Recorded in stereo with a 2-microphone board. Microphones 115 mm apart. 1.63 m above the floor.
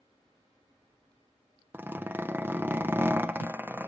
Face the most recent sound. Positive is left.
turn(degrees=-15)  # may be behind; listen again after turning